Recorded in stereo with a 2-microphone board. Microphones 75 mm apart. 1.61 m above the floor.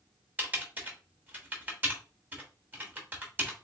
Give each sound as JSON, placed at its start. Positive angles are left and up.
{"t": 0.4, "sound": "typing on a keyboard", "side_deg": -25, "distance_m": 1.1}